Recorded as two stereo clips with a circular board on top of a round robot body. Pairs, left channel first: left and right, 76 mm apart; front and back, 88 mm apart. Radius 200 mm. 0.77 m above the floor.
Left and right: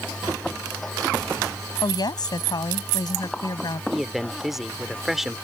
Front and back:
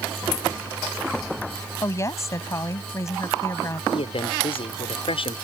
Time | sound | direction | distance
1.8 | a woman speaking | 60° left | ?
3.9 | a man speaking | 5° right | ?